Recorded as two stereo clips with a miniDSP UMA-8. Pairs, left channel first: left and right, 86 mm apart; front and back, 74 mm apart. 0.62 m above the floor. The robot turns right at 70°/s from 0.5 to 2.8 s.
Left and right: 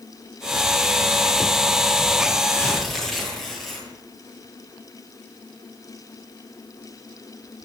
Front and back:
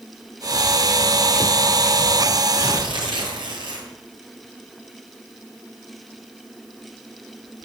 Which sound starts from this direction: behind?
Tearing paper, at 2.6 s.